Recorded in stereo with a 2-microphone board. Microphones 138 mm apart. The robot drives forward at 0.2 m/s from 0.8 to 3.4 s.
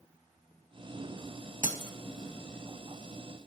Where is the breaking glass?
70° right (ahead or behind), 0.7 m.